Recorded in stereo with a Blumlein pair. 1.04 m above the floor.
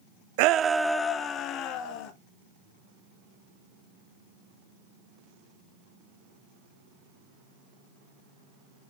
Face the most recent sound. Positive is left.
turn(degrees=40)